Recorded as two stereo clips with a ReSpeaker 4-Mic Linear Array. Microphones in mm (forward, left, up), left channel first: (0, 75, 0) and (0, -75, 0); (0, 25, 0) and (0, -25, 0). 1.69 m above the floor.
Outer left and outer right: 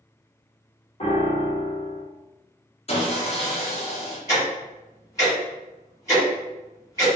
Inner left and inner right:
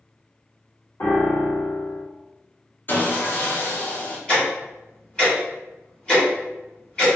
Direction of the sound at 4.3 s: 20° left (ahead or behind).